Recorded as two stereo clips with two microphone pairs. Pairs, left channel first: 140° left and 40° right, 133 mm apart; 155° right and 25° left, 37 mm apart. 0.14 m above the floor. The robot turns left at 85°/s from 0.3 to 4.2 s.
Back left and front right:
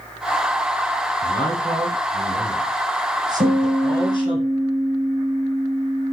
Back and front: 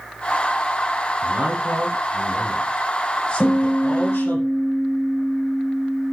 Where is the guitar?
70° right, 7.5 m; by 6.1 s 135° right, 7.5 m.